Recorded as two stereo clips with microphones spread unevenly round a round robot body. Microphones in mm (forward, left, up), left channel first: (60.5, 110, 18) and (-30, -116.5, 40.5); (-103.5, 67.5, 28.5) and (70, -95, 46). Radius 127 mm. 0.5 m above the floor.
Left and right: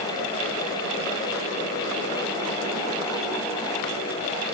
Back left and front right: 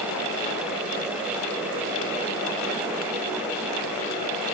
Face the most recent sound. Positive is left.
No sound to turn to.